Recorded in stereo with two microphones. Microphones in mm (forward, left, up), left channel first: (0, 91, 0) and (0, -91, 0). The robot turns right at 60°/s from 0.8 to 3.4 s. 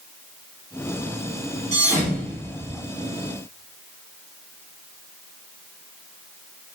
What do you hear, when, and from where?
1.7 s a thud: 45° right (ahead or behind), 1.8 m; by 2.7 s 15° left (ahead or behind), 1.8 m